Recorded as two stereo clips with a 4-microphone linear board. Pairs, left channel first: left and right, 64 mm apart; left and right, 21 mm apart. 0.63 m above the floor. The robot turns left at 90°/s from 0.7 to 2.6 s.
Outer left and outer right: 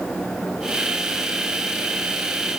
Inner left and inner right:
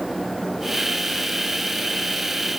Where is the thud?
No thud in this recording.